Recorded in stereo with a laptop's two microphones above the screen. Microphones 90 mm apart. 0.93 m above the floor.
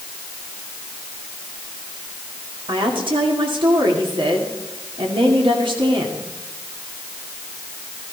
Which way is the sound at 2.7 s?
65° right (ahead or behind).